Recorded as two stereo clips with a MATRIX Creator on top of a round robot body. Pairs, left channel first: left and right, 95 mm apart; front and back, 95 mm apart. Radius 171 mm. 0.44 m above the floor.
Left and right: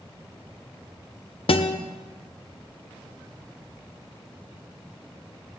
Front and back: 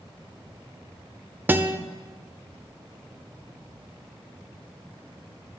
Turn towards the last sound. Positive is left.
turn(degrees=110)